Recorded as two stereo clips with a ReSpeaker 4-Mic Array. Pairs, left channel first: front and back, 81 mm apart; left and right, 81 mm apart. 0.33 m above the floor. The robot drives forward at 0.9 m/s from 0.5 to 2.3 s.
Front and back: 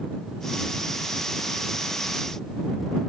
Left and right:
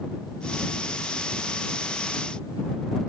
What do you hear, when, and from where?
Only background noise.